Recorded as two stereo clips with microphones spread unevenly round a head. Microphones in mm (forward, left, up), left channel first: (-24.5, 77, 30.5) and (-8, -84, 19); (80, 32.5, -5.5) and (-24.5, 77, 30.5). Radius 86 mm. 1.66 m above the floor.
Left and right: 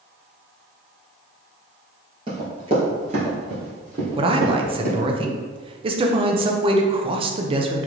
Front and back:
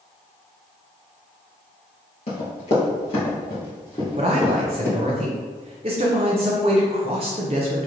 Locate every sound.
2.3 s running footsteps: 35° right, 2.0 m; by 5.0 s 115° right, 2 m
4.2 s a man speaking: 145° right, 0.5 m